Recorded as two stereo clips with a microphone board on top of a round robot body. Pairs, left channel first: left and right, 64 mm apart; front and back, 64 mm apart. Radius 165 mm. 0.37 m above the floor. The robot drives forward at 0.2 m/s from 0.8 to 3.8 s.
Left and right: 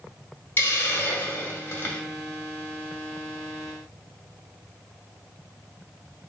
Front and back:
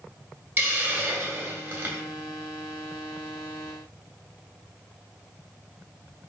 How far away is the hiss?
About 1.6 m.